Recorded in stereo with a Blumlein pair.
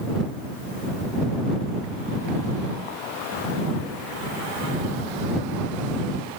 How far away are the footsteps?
I don't hear footsteps.